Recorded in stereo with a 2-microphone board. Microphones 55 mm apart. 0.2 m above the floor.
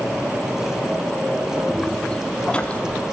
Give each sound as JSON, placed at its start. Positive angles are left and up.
{"t": 1.7, "sound": "footsteps", "side_deg": 10, "distance_m": 3.0}